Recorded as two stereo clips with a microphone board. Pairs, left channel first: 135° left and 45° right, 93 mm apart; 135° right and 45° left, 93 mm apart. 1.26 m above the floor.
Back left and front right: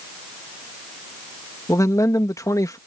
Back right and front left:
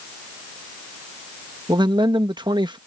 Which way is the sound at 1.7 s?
80° left.